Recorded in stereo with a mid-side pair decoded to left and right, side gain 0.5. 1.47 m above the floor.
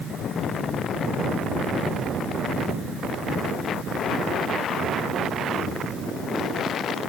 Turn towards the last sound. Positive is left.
No sound to turn to.